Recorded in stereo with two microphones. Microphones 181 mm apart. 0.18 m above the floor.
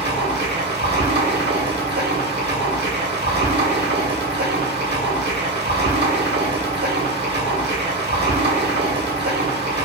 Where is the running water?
85° right, 1.1 m.